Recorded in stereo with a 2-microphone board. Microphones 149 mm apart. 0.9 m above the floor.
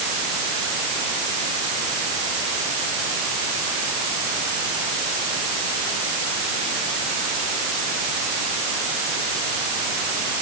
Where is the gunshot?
I don't hear a gunshot.